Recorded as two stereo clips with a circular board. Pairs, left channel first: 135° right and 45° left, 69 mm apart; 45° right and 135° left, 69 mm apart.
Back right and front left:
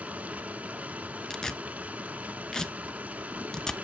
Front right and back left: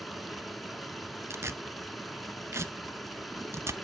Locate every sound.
0.0 s running water: 45° left, 0.9 m
1.3 s tearing paper: 145° left, 0.6 m